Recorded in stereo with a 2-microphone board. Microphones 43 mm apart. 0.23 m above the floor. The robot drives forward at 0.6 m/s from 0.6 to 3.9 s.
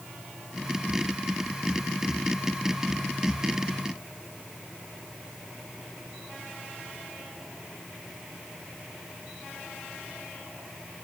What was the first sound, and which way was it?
Only background noise.